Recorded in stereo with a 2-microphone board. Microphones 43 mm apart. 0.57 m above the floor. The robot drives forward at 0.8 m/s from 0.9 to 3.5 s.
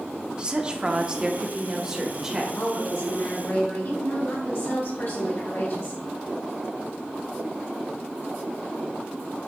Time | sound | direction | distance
0.4 | a woman speaking | 20° right (ahead or behind) | 0.9 m
2.5 | a woman speaking | 70° left (ahead or behind) | 2.5 m